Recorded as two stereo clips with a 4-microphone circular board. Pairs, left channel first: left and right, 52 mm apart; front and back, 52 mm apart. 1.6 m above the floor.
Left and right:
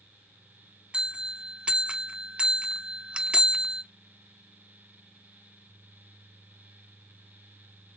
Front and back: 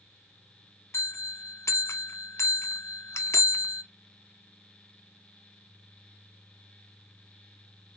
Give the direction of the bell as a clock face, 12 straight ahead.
1 o'clock.